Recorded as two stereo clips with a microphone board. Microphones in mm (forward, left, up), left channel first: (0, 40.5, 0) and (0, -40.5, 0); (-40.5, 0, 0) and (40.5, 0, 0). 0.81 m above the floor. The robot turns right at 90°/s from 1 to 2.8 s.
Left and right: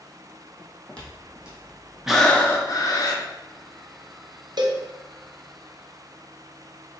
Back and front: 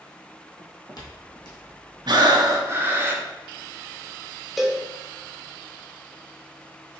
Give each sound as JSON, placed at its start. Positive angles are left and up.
{"t": 0.6, "sound": "footsteps", "azimuth_deg": 175, "distance_m": 1.3}
{"t": 2.1, "sound": "breathing", "azimuth_deg": -5, "distance_m": 0.7}
{"t": 4.6, "sound": "a cowbell", "azimuth_deg": -90, "distance_m": 0.6}